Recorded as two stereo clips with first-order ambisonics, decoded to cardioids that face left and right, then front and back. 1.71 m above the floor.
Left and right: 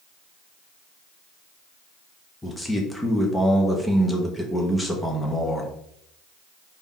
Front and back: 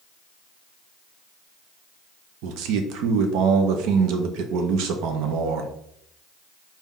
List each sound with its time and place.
2.4 s a man speaking: 175° left, 0.6 m